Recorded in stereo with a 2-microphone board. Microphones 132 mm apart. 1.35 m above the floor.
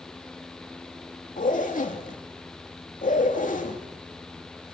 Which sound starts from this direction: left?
A zipper, at 1.4 s.